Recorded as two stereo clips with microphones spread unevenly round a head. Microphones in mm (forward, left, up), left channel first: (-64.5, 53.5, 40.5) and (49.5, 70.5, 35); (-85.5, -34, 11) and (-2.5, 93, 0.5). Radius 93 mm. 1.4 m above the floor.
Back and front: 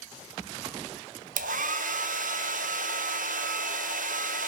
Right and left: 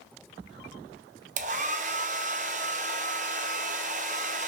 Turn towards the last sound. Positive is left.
turn(degrees=0)